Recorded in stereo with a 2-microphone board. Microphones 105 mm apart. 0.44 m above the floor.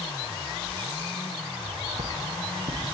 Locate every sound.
1.6 s footsteps: 85° right, 6 m; by 3.0 s 80° right, 7.5 m